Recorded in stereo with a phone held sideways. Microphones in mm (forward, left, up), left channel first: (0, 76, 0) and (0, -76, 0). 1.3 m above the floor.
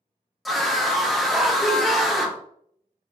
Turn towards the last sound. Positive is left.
turn(degrees=0)  # may be behind; listen again after turning